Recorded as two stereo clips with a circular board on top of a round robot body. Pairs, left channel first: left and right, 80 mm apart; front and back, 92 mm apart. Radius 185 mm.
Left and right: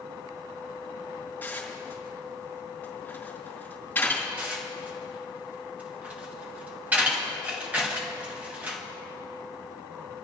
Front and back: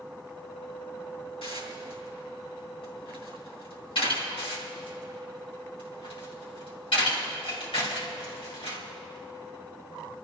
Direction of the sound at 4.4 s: 20° right.